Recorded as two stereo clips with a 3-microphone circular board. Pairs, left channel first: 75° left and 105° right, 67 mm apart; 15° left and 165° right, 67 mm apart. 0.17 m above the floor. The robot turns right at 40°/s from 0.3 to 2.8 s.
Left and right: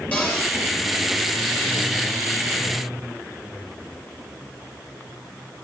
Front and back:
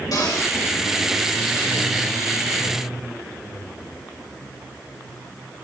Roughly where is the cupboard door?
Ahead.